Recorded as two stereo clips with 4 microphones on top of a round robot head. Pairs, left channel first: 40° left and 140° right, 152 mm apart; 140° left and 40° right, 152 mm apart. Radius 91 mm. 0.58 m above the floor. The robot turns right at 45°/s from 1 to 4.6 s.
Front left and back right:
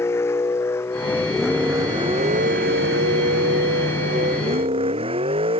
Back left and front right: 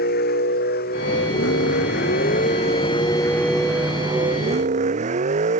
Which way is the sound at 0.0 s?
115° left.